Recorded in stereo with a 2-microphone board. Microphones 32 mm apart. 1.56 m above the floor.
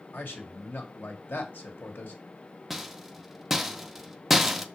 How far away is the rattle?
About 0.7 m.